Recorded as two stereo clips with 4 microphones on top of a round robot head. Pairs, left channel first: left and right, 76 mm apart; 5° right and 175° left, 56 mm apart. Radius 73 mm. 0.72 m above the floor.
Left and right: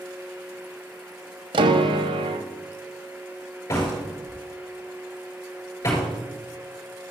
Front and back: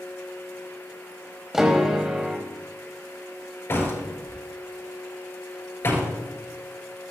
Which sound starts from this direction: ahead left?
A door slam, at 3.7 s.